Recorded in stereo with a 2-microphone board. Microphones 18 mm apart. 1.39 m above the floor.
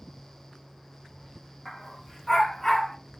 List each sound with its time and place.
1.6 s a dog barking: centre (ahead or behind), 2.5 m; by 3.0 s 20° left (ahead or behind), 2 m